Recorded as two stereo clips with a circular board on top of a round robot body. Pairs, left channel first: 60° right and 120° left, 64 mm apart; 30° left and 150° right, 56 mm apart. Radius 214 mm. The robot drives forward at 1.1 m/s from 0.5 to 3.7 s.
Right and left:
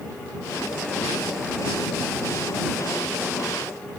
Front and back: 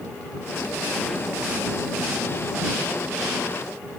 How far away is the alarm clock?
No alarm clock in this recording.